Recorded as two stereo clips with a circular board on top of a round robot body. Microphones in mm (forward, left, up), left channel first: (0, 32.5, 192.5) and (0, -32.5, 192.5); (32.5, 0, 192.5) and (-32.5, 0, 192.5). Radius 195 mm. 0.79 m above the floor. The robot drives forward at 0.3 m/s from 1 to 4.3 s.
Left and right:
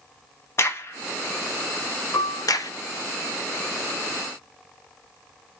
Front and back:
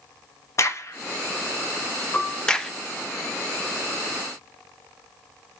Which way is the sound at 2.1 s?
65° left.